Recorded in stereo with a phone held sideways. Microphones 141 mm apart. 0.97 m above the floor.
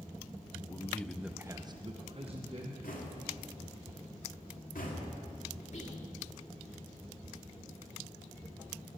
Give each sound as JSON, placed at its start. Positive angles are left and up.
{"t": 0.6, "sound": "a man speaking", "side_deg": 20, "distance_m": 0.7}
{"t": 2.8, "sound": "knocking", "side_deg": 80, "distance_m": 2.0}
{"t": 5.7, "sound": "whispering", "side_deg": 55, "distance_m": 2.5}